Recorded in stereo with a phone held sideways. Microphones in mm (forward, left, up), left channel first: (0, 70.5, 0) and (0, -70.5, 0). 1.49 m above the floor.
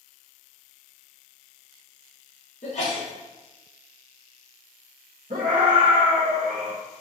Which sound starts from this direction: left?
A sneeze, at 2.6 s.